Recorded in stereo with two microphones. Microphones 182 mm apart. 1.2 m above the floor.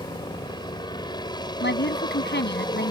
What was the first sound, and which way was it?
A helicopter, 25° left (ahead or behind).